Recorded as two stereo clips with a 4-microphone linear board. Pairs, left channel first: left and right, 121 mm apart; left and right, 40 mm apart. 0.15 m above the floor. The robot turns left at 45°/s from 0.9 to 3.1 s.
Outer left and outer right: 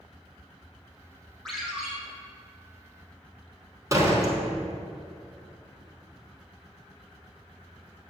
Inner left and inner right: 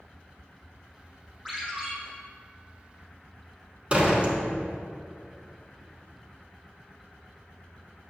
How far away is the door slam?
About 1.3 m.